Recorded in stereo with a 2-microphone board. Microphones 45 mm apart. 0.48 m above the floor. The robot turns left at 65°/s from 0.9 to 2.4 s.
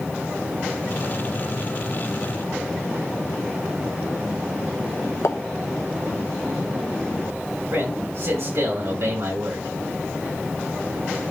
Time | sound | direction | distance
5.2 | a pop | 75° left (ahead or behind) | 1.0 m
7.7 | a man speaking | 70° right (ahead or behind) | 5.5 m